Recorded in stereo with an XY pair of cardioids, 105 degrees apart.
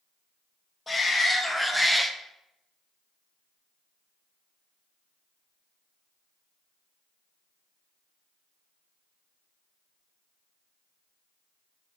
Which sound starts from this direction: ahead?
A shout, at 0.9 s.